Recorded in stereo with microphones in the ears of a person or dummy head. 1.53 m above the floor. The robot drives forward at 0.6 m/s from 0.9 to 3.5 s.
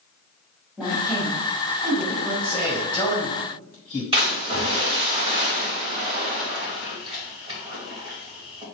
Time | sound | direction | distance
0.8 | a woman speaking | 10° left (ahead or behind) | 3.5 m
2.4 | a man speaking | 20° left (ahead or behind) | 2.5 m
4.1 | a splash | 20° right (ahead or behind) | 3 m